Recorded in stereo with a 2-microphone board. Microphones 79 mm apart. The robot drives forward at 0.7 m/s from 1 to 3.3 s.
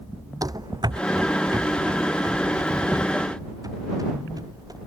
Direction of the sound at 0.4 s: 50° right (ahead or behind).